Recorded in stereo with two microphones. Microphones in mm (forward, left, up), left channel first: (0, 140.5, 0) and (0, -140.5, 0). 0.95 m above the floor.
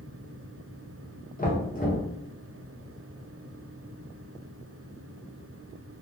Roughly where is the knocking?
Left.